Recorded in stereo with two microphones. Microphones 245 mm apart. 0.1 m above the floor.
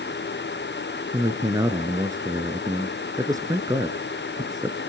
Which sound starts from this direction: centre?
A man speaking, at 1.1 s.